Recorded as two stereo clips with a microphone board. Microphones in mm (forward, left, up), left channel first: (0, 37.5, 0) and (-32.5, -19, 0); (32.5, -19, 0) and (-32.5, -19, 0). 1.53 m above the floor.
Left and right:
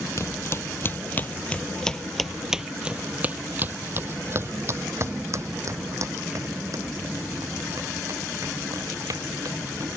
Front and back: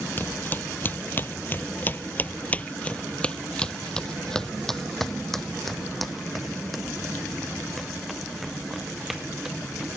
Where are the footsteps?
50° left; by 9.9 s 95° right.